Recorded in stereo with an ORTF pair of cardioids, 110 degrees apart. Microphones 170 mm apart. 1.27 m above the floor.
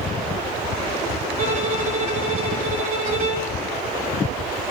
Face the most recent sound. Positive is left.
turn(degrees=-55)